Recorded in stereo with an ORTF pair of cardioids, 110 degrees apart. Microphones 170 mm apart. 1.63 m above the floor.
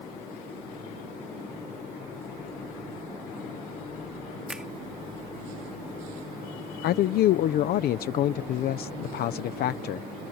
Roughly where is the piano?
I don't hear a piano.